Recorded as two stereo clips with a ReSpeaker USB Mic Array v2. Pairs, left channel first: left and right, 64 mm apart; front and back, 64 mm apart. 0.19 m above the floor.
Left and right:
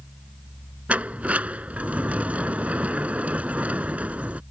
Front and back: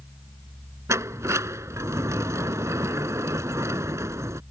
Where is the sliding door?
155° right.